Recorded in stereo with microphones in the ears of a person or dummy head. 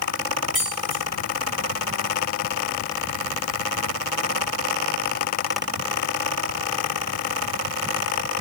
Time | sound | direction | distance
0.5 | keys jangling | 5° right (ahead or behind) | 1.5 m